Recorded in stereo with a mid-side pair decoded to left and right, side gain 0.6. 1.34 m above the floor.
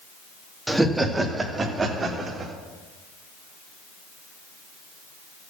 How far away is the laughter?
About 2.0 m.